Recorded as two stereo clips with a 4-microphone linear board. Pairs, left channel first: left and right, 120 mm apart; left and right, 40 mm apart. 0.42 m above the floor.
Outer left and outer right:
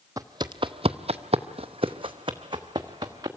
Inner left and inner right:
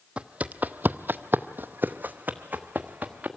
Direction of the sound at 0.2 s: 30° right (ahead or behind).